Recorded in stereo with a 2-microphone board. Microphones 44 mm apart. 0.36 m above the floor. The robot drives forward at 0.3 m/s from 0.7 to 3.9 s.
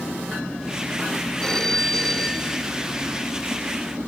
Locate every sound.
1.4 s a phone ringing: 15° left (ahead or behind); by 2.7 s 10° left (ahead or behind)